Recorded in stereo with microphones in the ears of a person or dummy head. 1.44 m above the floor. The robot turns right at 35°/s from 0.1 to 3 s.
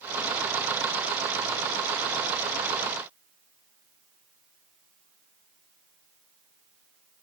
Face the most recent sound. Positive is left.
No sound to turn to.